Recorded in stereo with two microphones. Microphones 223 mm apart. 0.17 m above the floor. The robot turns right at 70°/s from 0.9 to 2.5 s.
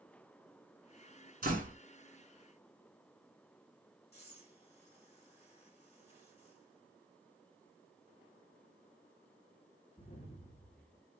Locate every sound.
1.4 s a door slam: 40° right (ahead or behind), 1.5 m; by 1.8 s 35° right (ahead or behind), 1.5 m
4.1 s breathing: 30° left (ahead or behind), 1.9 m